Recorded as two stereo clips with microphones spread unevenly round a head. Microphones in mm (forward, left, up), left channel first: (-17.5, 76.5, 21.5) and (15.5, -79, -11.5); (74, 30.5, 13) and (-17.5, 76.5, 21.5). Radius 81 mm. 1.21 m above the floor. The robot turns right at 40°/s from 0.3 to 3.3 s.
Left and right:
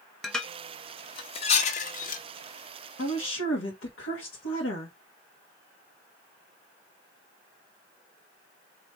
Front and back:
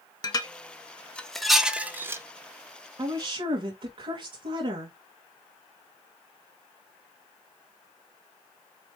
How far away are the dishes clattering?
About 0.7 m.